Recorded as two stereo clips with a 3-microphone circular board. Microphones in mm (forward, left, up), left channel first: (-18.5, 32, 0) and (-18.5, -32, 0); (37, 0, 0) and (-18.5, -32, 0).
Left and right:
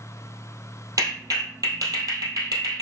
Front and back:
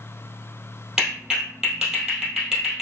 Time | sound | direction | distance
1.0 | a clap | 70° right | 2.5 m